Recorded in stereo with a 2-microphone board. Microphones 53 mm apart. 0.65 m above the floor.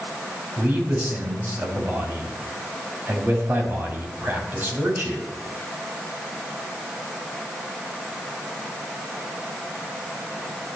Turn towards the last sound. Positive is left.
turn(degrees=-40)  # may be behind; listen again after turning